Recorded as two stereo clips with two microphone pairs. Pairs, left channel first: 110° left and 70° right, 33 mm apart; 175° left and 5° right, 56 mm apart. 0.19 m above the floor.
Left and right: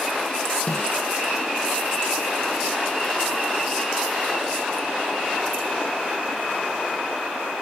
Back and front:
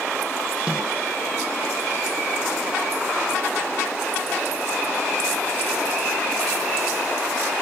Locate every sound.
0.7 s a snare drum: 65° left, 6.5 m